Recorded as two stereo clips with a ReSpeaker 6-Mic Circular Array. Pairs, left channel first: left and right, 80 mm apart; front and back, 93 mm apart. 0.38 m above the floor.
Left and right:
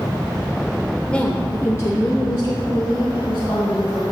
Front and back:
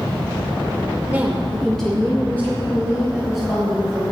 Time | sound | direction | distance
1.1 | a woman speaking | 145° left | 0.8 m